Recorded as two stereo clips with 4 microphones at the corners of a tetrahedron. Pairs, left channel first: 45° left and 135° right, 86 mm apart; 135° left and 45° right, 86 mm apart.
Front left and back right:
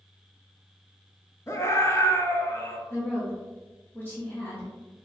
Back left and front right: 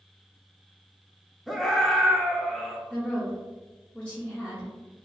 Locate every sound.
1.5 s a scream: 50° left, 0.7 m
2.9 s a woman speaking: 75° left, 1.1 m